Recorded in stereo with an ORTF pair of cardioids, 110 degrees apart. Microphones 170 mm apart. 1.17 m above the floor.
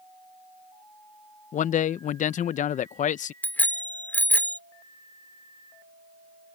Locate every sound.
1.5 s a man speaking: 50° left
3.4 s a bicycle bell: 10° left